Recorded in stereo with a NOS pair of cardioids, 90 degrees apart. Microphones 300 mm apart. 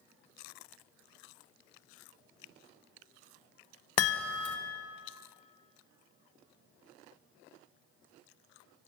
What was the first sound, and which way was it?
A chime, 55° left.